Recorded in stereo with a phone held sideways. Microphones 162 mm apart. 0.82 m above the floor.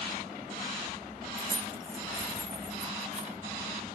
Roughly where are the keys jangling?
Right.